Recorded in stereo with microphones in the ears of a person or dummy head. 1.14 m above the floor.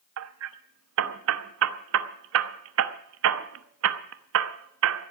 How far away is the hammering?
About 0.8 m.